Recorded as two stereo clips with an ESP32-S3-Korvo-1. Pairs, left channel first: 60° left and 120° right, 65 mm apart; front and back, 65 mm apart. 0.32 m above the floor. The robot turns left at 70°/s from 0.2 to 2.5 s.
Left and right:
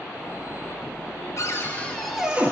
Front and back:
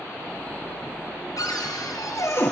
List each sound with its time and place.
1.4 s a cupboard door: 20° left, 1.7 m; by 2.5 s 55° right, 1.7 m